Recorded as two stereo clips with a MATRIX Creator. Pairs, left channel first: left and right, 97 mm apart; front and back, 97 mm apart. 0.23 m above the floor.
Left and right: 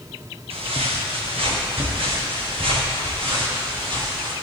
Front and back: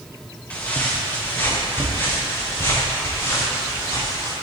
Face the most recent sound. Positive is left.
turn(degrees=-60)